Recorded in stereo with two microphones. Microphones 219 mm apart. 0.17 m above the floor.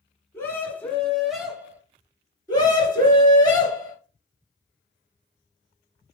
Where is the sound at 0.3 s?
10° left (ahead or behind), 1.9 m; by 1.8 s 10° right (ahead or behind), 1.4 m.